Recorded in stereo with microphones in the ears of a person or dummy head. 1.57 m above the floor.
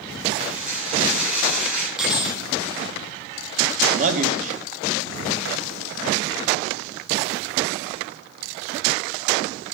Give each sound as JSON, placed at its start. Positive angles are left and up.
{"t": 0.4, "sound": "dishes clattering", "side_deg": -5, "distance_m": 8.0}
{"t": 2.0, "sound": "cutlery clinking", "side_deg": -5, "distance_m": 1.5}
{"t": 3.9, "sound": "a man speaking", "side_deg": -45, "distance_m": 2.5}